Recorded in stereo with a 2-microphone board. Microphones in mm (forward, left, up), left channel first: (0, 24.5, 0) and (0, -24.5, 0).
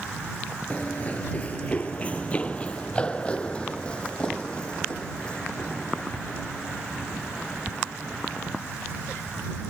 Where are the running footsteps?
30° left (ahead or behind); by 8.6 s 15° left (ahead or behind).